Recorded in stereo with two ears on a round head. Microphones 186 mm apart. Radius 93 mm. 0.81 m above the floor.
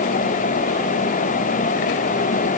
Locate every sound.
Only background noise.